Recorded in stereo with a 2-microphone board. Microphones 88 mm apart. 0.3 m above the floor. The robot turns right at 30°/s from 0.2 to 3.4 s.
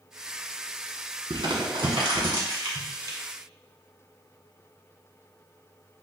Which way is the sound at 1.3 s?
75° right (ahead or behind).